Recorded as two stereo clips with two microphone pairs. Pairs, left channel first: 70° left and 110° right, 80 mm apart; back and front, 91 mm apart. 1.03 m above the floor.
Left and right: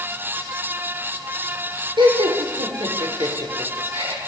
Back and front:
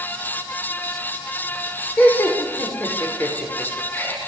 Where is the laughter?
110° right, 4 m.